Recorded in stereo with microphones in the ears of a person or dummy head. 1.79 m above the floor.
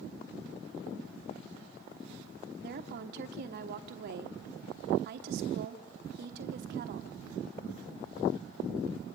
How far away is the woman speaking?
About 1.2 m.